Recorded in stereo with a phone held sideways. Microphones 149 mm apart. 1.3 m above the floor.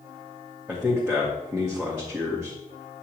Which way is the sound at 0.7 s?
10° right (ahead or behind).